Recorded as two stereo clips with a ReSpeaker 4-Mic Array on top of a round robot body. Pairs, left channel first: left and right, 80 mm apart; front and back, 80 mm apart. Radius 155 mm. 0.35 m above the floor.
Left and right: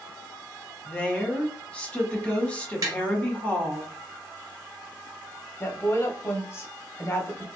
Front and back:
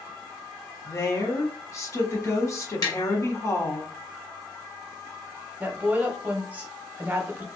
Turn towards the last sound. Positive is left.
turn(degrees=125)